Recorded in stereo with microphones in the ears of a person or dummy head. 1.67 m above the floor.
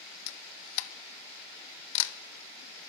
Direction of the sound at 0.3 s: 65° left (ahead or behind).